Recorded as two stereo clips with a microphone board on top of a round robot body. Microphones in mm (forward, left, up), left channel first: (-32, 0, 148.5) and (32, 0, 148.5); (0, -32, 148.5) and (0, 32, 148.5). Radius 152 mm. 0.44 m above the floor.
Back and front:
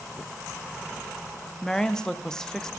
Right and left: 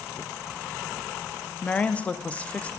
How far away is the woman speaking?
About 0.8 m.